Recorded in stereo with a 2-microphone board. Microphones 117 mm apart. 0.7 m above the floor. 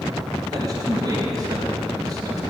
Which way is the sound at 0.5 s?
35° right (ahead or behind).